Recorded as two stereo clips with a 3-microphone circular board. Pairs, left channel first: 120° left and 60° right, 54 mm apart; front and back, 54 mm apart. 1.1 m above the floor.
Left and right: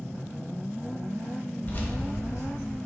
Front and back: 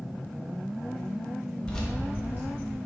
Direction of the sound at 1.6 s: 60° left.